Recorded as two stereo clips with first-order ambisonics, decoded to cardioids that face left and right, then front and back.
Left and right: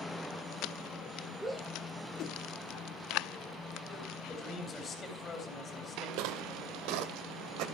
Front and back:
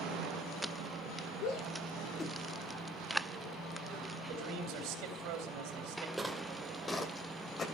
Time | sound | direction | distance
1.4 | a shout | straight ahead | 1.4 m
4.3 | a man speaking | 155° left | 3.5 m
6.2 | footsteps | 95° right | 1.5 m